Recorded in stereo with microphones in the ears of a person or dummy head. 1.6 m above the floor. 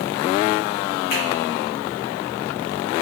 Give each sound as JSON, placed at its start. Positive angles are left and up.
{"t": 1.1, "sound": "a finger snap", "side_deg": 55, "distance_m": 1.1}